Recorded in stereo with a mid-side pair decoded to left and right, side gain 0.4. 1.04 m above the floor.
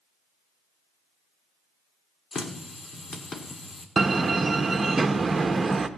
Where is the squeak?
No squeak in this recording.